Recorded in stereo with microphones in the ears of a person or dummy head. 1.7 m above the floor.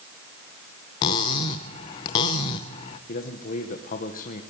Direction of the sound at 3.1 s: 45° left (ahead or behind).